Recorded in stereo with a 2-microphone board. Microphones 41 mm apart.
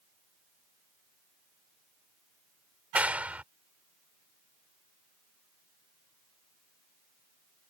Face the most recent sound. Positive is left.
turn(degrees=-35)  # may be behind; listen again after turning